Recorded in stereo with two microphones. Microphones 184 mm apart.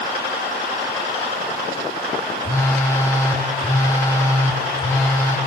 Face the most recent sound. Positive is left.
turn(degrees=15)  # may be behind; listen again after turning